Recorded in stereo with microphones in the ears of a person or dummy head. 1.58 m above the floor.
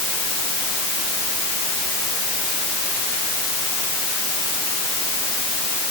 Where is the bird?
No bird in this recording.